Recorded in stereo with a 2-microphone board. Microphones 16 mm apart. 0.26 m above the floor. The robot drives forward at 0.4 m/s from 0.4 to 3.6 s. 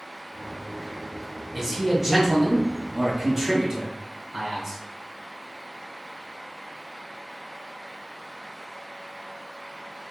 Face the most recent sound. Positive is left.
turn(degrees=-10)  # may be behind; listen again after turning